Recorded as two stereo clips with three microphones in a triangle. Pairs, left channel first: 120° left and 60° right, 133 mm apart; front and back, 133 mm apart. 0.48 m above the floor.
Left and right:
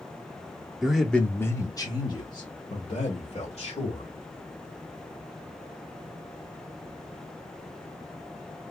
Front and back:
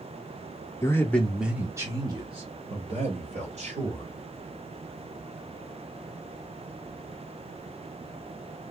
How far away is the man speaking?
About 0.7 m.